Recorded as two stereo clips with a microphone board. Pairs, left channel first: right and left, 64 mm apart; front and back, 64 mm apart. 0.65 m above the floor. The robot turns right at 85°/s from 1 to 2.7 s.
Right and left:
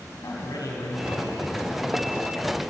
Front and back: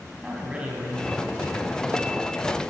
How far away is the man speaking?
About 4 m.